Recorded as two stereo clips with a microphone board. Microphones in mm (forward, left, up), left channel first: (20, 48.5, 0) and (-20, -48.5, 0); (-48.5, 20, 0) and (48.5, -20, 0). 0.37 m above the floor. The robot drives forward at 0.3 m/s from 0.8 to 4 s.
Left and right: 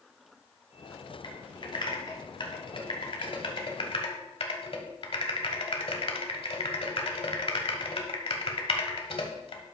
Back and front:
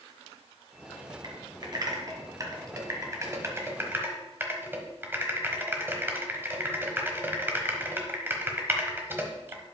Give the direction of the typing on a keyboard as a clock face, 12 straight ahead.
11 o'clock.